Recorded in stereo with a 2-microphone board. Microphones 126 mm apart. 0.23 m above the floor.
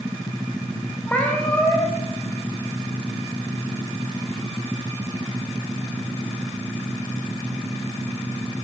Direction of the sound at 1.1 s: 10° left (ahead or behind).